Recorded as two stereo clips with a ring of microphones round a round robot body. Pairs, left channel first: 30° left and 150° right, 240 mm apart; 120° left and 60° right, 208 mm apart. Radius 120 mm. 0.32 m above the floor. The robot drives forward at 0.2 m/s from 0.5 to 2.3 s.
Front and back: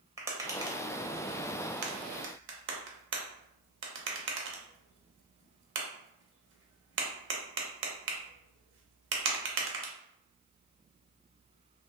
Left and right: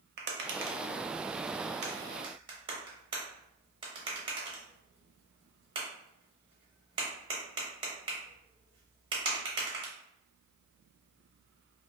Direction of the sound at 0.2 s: 75° right.